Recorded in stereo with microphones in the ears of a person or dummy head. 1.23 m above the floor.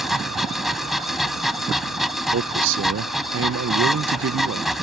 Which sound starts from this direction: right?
A man speaking, at 2.3 s.